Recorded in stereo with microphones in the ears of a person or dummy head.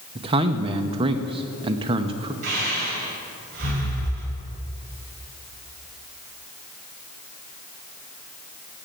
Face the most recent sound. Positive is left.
turn(degrees=-55)  # may be behind; listen again after turning